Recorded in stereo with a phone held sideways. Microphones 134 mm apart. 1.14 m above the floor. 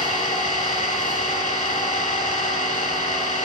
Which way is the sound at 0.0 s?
75° left (ahead or behind).